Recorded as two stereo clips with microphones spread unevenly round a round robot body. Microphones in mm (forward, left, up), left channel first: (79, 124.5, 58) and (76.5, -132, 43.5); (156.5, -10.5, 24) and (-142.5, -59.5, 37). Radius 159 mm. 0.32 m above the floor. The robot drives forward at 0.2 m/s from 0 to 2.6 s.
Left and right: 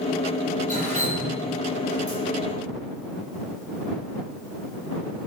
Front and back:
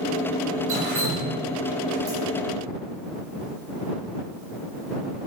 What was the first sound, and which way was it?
Dripping, 155° left.